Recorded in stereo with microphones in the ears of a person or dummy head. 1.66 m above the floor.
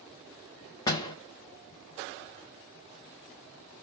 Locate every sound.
0.9 s a door slam: 25° left (ahead or behind), 0.7 m